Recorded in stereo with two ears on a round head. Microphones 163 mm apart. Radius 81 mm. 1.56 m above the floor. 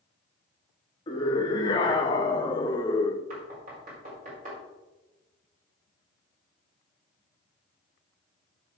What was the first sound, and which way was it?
A scream, 25° left (ahead or behind).